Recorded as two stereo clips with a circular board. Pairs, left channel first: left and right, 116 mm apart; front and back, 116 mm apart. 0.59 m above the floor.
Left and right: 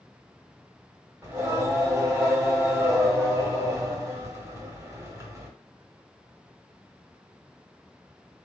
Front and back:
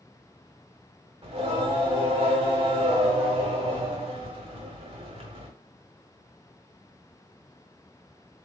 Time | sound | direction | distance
1.2 | singing | 155° right | 1.3 m